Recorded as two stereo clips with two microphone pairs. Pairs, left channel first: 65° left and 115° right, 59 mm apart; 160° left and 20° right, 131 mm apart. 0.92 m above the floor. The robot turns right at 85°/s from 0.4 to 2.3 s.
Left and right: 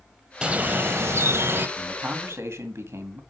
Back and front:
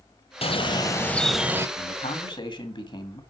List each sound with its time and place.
0.4 s a bird: straight behind, 0.9 m; by 1.7 s 75° right, 0.9 m
1.8 s a man speaking: 165° left, 1.9 m; by 3.2 s 150° right, 1.9 m